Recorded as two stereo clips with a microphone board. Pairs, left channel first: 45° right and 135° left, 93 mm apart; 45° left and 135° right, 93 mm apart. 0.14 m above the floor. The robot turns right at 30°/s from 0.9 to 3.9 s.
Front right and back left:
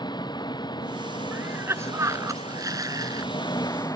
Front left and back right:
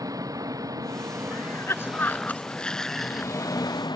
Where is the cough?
80° left; by 3.3 s 140° left.